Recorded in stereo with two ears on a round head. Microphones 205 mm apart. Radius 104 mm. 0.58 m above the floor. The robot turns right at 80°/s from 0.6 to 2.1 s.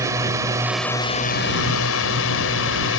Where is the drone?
15° right; by 3.0 s 105° left.